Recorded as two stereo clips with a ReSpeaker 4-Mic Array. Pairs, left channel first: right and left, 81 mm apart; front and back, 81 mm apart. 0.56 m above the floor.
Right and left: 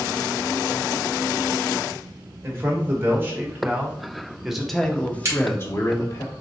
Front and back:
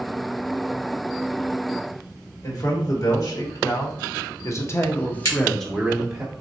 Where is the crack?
40° left, 1.7 m.